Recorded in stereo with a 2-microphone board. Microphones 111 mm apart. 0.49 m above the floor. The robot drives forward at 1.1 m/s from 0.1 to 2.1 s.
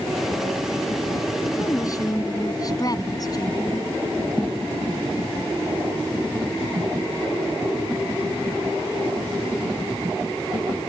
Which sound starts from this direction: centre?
A thud, at 4.4 s.